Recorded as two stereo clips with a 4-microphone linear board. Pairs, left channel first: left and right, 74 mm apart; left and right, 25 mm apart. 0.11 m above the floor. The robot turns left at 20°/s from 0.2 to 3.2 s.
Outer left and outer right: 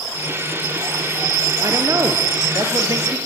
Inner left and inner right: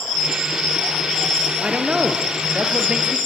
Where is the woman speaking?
90° right, 2 m; by 3.2 s 120° right, 2 m.